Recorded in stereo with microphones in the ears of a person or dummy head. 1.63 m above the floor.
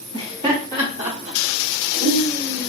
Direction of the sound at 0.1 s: 30° right (ahead or behind).